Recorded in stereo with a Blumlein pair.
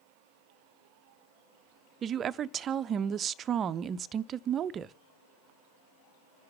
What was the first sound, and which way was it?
A woman speaking, 25° right.